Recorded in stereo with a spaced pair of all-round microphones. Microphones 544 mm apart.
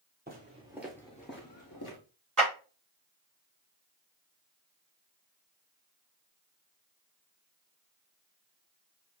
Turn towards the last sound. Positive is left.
turn(degrees=-35)  # may be behind; listen again after turning